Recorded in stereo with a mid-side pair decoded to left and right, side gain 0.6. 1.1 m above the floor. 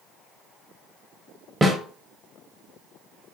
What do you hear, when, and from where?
1.6 s a snare drum: 20° right, 0.9 m